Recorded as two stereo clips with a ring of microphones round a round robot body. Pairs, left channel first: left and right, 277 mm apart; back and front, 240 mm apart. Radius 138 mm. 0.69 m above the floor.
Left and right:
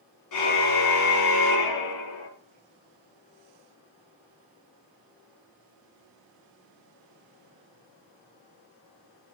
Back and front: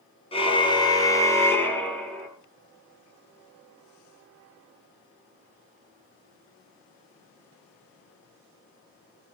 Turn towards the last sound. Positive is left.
turn(degrees=90)